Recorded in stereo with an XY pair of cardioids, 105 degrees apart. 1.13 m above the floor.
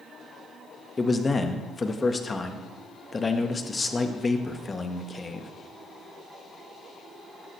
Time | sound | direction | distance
1.0 | a man speaking | 25° left | 1.4 m